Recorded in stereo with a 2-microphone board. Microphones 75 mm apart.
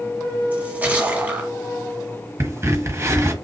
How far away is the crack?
About 1.0 m.